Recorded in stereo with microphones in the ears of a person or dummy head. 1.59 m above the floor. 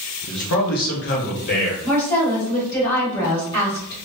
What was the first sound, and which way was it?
A man speaking, 55° left (ahead or behind).